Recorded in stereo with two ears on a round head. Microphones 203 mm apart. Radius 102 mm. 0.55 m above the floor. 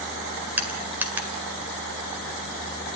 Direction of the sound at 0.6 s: 10° right (ahead or behind).